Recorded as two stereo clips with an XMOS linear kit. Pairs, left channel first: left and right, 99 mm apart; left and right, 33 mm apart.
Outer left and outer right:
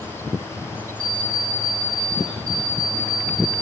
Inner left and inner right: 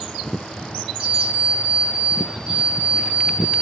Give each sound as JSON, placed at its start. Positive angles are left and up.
{"t": 1.0, "sound": "an alarm clock", "side_deg": -40, "distance_m": 3.0}